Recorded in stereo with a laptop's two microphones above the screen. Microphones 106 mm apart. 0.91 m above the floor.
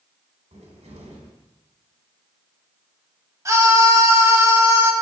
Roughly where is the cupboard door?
Right.